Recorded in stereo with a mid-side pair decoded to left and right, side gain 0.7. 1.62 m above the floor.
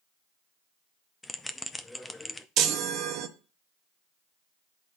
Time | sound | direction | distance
1.2 | a bell | 10° left | 0.6 m
2.6 | a chime | 55° right | 0.8 m